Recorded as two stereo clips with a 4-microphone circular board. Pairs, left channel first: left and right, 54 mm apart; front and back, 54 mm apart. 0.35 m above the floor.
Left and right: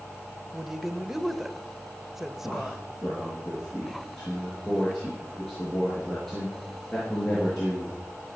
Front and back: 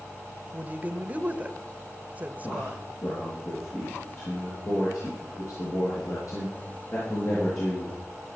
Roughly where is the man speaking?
Ahead.